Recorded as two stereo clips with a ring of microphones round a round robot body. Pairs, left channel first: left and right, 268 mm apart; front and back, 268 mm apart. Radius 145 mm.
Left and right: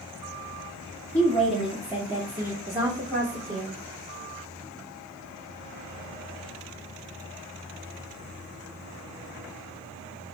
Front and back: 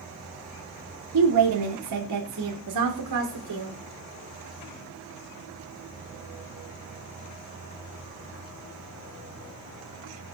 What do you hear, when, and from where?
1.1 s a woman speaking: 175° left, 1.6 m; by 3.8 s 160° right, 2.5 m